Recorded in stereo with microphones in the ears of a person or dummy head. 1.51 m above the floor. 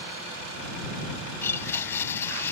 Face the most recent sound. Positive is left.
turn(degrees=15)  # may be behind; listen again after turning